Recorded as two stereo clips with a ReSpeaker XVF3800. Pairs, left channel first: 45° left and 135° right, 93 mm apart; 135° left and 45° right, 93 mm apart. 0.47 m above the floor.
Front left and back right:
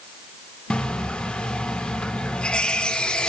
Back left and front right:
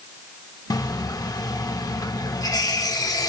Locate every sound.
0.7 s a running tap: 120° left, 0.6 m